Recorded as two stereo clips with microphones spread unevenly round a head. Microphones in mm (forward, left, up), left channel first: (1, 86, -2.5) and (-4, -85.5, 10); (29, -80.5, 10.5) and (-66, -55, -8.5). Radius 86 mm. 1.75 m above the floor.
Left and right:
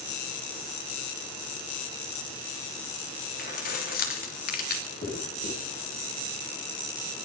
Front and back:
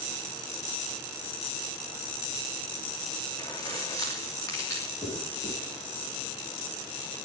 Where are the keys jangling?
50° left, 3 m.